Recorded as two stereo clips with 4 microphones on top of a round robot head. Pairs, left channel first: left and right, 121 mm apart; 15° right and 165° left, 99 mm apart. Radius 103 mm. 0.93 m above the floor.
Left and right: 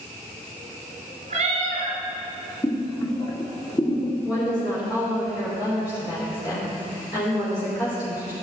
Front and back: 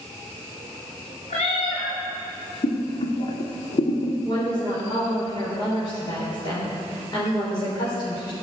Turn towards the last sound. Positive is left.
turn(degrees=30)